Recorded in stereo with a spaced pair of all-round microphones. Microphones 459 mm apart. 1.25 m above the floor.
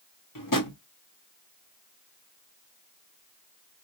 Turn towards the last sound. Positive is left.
turn(degrees=45)  # may be behind; listen again after turning